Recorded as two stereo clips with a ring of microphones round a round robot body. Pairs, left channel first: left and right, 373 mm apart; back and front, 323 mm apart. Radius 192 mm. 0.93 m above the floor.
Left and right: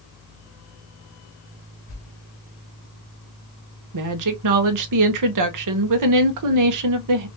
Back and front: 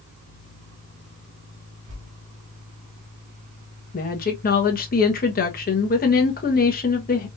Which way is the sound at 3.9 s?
120° right.